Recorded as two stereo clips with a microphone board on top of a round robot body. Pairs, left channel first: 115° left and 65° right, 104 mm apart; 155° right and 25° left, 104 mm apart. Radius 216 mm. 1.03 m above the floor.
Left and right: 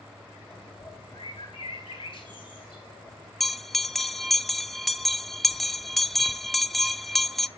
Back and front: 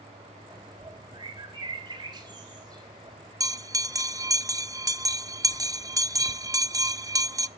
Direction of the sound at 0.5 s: 75° left.